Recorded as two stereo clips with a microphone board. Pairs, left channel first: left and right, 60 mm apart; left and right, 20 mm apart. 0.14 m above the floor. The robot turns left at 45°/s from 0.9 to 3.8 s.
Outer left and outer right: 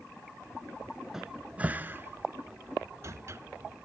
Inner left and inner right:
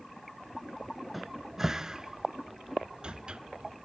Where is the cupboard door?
5° right (ahead or behind), 0.6 m; by 3.4 s 50° right (ahead or behind), 0.6 m.